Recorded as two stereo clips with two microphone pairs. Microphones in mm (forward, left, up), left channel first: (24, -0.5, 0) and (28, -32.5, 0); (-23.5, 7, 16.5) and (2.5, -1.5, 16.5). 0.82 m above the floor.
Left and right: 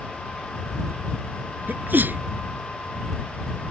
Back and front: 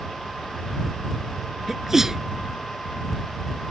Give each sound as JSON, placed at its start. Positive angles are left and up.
{"t": 1.7, "sound": "a sneeze", "azimuth_deg": -95}